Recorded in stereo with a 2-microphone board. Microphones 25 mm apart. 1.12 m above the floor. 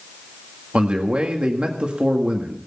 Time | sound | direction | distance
0.7 | a man speaking | 50° right (ahead or behind) | 1.9 m